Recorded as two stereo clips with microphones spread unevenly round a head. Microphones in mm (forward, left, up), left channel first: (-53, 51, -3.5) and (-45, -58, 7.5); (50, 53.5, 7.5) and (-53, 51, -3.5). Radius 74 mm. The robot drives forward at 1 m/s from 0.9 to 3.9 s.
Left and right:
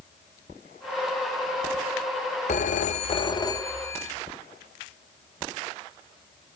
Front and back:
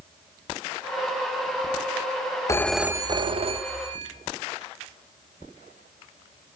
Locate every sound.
2.5 s a phone ringing: 55° left, 0.5 m; by 4.1 s 160° left, 1.2 m